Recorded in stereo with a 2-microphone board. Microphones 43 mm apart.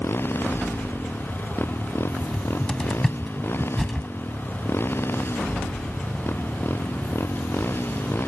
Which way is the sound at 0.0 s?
60° left (ahead or behind).